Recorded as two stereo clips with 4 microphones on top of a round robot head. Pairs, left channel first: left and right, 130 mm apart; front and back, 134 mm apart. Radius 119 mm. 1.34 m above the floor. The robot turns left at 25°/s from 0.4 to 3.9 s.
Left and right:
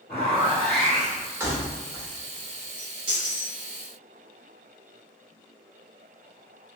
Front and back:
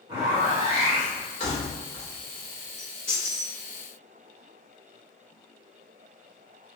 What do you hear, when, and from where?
0.1 s a zipper: 130° left, 1.2 m; by 1.3 s 110° left, 1.2 m
1.4 s keys jangling: 30° right, 0.5 m; by 3.5 s 80° right, 0.5 m